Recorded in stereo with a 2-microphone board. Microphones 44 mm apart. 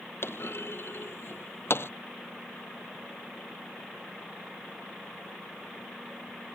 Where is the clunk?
60° left (ahead or behind).